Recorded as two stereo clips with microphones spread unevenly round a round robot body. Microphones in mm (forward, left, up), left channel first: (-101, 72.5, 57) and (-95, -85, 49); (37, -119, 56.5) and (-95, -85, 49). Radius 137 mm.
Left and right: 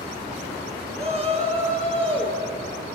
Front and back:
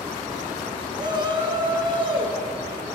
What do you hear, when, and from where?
1.0 s a shout: 135° right, 5.5 m; by 2.4 s 145° right, 6 m